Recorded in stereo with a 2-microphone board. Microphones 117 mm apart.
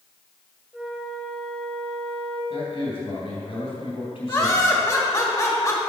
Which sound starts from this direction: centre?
A flute, at 0.7 s.